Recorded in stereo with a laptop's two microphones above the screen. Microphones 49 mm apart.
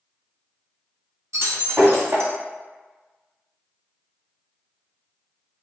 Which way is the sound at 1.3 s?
65° right (ahead or behind).